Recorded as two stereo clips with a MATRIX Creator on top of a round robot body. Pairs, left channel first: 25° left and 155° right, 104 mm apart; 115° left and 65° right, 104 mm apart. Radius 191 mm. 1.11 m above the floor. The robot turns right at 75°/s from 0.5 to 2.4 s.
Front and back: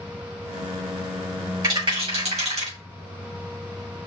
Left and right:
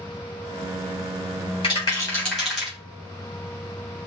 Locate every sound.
1.6 s a rattle: 150° left, 3.5 m; by 2.8 s 155° right, 3.5 m